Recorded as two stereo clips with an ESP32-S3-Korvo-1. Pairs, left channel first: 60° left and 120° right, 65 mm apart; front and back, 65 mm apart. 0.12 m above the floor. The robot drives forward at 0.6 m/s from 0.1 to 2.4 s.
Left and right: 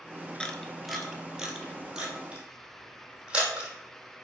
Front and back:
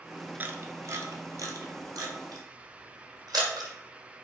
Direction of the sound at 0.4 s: 130° left.